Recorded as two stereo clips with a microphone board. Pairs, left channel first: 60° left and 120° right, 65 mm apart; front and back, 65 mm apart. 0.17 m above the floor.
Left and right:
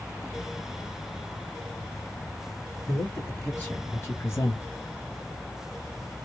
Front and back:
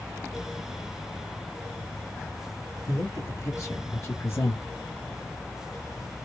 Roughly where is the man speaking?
Ahead.